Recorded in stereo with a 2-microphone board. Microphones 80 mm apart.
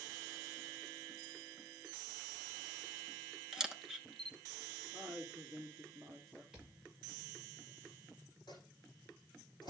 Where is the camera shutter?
5° right (ahead or behind), 0.8 m.